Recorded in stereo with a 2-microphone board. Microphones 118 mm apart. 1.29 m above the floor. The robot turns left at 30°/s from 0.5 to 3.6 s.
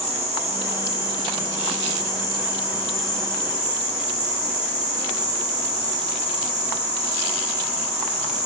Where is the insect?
105° right, 0.9 m; by 8.5 s 165° left, 0.9 m.